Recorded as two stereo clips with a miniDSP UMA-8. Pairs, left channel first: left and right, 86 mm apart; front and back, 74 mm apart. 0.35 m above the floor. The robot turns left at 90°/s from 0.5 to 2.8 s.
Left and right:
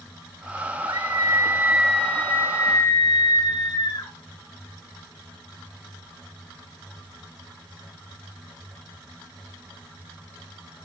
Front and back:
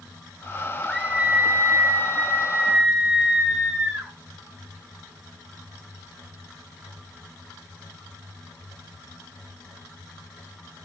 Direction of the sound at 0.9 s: 85° right.